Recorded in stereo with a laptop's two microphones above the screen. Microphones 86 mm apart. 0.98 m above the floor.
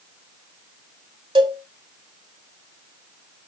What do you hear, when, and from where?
1.4 s a cowbell: 60° right (ahead or behind), 1.9 m